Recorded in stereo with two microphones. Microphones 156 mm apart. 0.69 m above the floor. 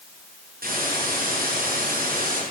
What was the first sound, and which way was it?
A hiss, 70° right (ahead or behind).